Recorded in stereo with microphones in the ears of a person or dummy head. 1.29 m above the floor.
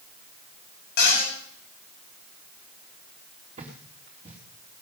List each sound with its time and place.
1.0 s a cupboard door: 60° left (ahead or behind), 9 m
3.6 s footsteps: 35° right (ahead or behind), 4.5 m